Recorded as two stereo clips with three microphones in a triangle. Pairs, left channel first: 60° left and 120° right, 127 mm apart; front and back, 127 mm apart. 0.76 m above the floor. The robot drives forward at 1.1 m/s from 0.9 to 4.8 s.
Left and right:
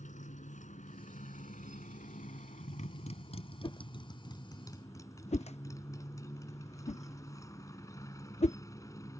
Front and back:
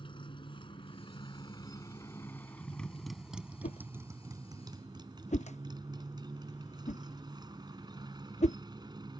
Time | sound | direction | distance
0.0 | a motorcycle | 50° left | ?
3.6 | a whoosh | 10° left | ?